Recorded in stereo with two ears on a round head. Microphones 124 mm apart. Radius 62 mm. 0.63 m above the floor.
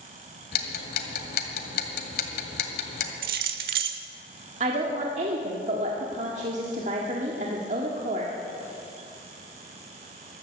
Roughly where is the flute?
I don't hear a flute.